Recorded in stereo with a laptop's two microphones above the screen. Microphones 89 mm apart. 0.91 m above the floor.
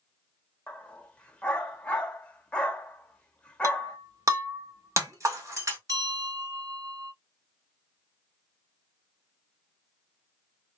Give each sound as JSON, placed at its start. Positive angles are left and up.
{"t": 0.7, "sound": "a dog barking", "side_deg": 15, "distance_m": 0.9}
{"t": 3.6, "sound": "breaking glass", "side_deg": -35, "distance_m": 1.7}
{"t": 5.9, "sound": "a bell", "side_deg": -45, "distance_m": 3.0}